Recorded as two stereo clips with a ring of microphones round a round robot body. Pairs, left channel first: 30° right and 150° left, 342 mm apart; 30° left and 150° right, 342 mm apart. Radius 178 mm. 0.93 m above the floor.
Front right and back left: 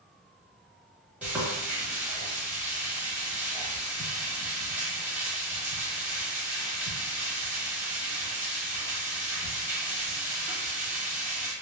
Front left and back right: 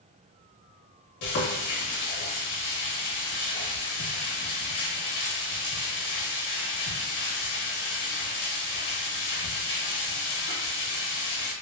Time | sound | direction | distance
1.2 | frying | 65° left | 1.0 m